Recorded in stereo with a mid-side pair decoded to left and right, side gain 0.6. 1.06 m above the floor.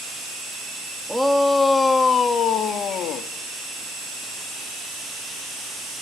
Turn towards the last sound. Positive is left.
turn(degrees=60)